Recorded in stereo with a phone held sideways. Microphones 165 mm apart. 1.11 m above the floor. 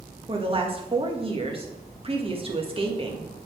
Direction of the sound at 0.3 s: 35° right (ahead or behind).